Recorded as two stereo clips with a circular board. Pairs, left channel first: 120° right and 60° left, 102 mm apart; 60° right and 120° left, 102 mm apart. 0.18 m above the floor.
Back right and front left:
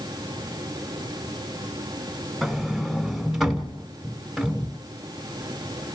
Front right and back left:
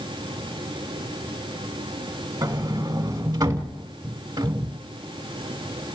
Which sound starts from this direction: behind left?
A sliding door, at 2.4 s.